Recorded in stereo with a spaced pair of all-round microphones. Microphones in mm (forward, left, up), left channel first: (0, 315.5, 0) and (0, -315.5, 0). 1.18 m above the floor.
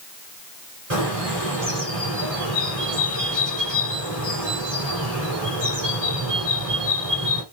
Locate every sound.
0.9 s a bird: 60° right (ahead or behind), 4.5 m